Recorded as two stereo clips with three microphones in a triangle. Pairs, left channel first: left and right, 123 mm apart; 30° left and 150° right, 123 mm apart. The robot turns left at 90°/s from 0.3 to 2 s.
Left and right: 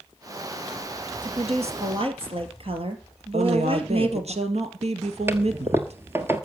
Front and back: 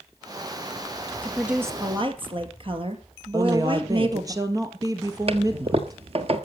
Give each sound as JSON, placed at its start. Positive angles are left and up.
{"t": 1.2, "sound": "a woman speaking", "azimuth_deg": -45, "distance_m": 2.5}
{"t": 3.3, "sound": "a woman speaking", "azimuth_deg": -95, "distance_m": 2.0}
{"t": 5.3, "sound": "a toilet flushing", "azimuth_deg": -155, "distance_m": 1.4}